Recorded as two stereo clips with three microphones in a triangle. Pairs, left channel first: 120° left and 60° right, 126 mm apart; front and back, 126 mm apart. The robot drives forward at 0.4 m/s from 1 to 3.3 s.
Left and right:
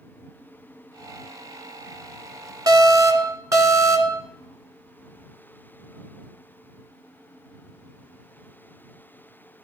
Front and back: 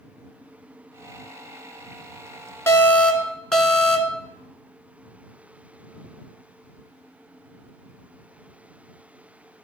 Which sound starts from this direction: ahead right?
An alarm, at 2.7 s.